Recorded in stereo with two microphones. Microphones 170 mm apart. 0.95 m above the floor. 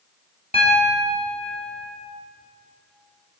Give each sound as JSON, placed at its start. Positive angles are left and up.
{"t": 0.5, "sound": "a piano", "side_deg": 40, "distance_m": 3.0}